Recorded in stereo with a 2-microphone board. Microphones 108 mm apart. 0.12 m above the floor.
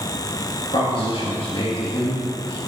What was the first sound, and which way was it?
A man speaking, 45° left (ahead or behind).